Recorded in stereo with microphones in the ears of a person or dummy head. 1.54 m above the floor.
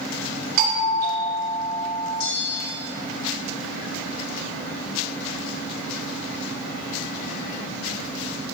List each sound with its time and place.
0.6 s a doorbell: 50° right (ahead or behind), 3.5 m
2.2 s a bell: 60° left (ahead or behind), 2.0 m